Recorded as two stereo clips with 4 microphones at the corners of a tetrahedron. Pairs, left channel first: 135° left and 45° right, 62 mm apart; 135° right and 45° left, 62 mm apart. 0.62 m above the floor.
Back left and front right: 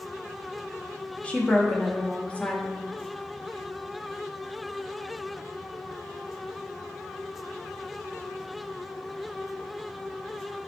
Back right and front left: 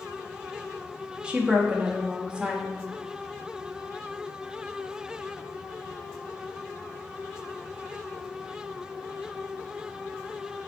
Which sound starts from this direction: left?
A woman speaking, at 1.2 s.